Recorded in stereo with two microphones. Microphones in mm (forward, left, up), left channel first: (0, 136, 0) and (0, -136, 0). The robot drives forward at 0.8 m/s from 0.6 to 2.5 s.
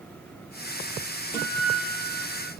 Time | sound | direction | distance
1.3 | a guitar | 10° right (ahead or behind) | 3 m